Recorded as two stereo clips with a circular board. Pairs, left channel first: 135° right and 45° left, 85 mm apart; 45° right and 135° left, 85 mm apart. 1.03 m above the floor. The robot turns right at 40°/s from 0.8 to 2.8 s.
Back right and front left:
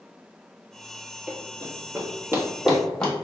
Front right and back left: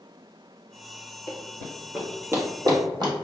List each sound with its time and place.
1.3 s running footsteps: 15° right, 1.4 m; by 3.1 s 145° left, 1.7 m